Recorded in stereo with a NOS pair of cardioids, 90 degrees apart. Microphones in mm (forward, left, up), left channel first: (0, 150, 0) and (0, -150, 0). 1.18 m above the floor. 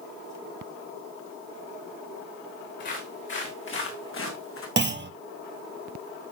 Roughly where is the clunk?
Ahead right.